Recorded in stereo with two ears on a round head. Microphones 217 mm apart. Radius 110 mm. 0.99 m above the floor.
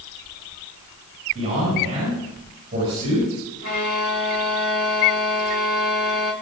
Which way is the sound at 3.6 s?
70° left (ahead or behind).